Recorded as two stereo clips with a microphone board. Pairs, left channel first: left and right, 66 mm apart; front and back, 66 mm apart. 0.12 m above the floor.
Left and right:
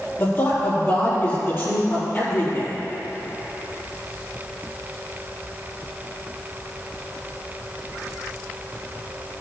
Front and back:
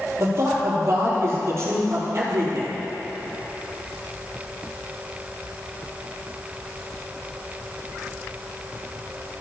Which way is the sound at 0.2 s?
140° left.